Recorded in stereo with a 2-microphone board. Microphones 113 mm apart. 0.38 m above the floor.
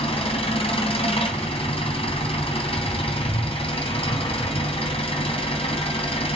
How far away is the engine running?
About 3 m.